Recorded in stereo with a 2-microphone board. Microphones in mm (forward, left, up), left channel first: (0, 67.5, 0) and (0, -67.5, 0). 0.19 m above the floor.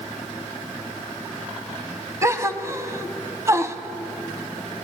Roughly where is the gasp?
Right.